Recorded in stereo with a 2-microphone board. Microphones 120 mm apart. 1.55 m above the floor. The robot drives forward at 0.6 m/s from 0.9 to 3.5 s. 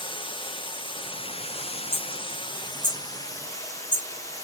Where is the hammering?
40° right (ahead or behind), 5.5 m; by 4.5 s 35° right (ahead or behind), 6 m.